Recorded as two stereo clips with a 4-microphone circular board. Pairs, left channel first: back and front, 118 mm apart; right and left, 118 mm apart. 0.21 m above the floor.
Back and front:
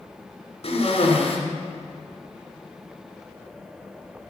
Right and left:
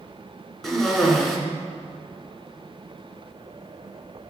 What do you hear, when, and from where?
0.6 s a cough: straight behind, 2.5 m